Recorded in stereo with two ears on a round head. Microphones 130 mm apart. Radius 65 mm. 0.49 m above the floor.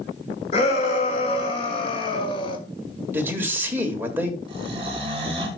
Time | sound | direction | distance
0.5 | a shout | 45° left (ahead or behind) | 3.5 m
3.1 | a man speaking | 15° right (ahead or behind) | 1.6 m
4.5 | snoring | 40° right (ahead or behind) | 2.5 m